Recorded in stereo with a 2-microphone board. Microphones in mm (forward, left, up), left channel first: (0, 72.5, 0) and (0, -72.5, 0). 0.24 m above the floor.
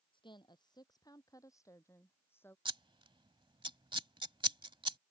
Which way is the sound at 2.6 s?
35° right (ahead or behind).